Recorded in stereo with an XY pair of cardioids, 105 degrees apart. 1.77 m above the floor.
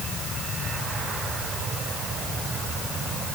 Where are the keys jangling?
No keys jangling in this recording.